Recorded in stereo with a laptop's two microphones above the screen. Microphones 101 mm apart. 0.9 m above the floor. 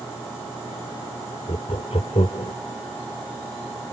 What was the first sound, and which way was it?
Laughter, 85° left.